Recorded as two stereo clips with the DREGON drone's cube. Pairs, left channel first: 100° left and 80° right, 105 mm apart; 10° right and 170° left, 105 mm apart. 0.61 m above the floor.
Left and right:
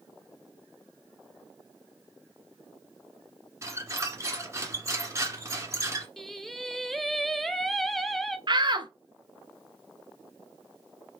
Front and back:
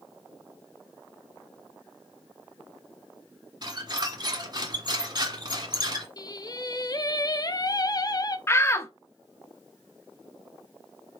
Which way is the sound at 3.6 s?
140° right.